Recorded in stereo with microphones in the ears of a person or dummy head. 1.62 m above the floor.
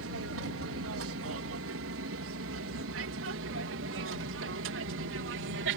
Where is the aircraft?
70° right (ahead or behind); by 5.8 s 60° right (ahead or behind).